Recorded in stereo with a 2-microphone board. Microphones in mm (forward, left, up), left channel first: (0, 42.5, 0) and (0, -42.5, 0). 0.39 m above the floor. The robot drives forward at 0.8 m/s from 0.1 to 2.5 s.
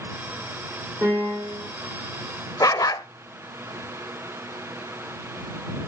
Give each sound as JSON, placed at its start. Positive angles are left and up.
{"t": 1.0, "sound": "a piano", "side_deg": -35, "distance_m": 8.5}
{"t": 2.6, "sound": "a dog barking", "side_deg": 45, "distance_m": 0.6}